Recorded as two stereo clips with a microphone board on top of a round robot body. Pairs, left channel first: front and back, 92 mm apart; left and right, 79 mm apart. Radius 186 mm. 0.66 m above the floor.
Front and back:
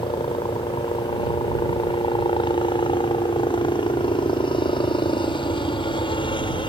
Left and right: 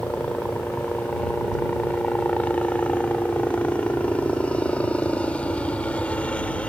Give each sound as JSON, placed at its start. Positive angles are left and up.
{"t": 0.0, "sound": "a helicopter", "azimuth_deg": 15}